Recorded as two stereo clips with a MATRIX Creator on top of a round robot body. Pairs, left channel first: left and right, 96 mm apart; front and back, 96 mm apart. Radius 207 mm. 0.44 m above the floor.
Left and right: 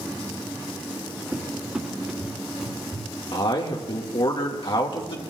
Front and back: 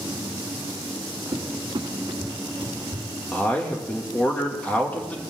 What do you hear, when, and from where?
1.3 s a cupboard door: 170° right, 1.9 m
3.3 s a man speaking: 75° left, 1.9 m